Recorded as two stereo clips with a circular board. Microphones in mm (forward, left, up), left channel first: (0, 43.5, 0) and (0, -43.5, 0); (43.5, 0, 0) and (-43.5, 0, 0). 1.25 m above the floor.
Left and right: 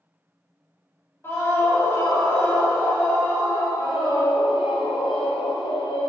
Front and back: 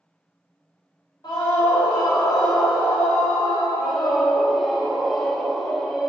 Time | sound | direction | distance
1.2 | a scream | 30° left | 3.5 m
3.8 | a scream | 90° left | 1.8 m